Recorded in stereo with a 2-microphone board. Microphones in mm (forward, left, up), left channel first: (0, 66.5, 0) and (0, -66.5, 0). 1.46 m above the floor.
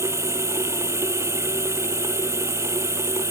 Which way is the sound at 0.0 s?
20° right (ahead or behind).